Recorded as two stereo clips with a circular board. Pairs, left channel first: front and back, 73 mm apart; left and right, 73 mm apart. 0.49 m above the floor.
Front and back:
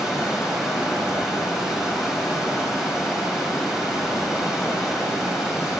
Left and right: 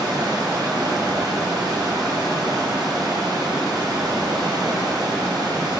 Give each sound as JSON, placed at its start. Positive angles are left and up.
{"t": 0.0, "sound": "running water", "azimuth_deg": -100, "distance_m": 2.5}